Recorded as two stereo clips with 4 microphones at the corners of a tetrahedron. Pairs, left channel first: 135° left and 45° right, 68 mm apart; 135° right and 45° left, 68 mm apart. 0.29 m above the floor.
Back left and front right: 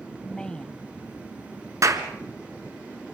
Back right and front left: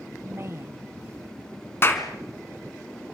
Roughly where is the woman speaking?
Ahead left.